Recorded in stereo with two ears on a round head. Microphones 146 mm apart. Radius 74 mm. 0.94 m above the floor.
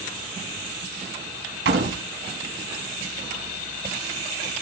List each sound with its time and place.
1.6 s a door slam: 85° right, 5 m